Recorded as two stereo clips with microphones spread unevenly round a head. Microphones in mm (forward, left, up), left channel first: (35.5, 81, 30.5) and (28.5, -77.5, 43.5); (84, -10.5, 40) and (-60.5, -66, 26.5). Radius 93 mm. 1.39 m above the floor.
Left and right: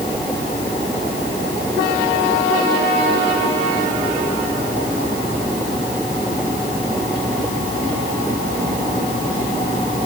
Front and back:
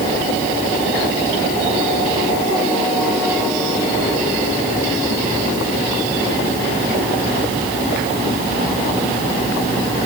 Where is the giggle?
I don't hear a giggle.